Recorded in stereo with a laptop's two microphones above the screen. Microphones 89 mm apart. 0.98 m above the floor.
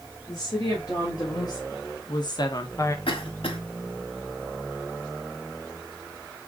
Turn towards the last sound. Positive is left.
turn(degrees=80)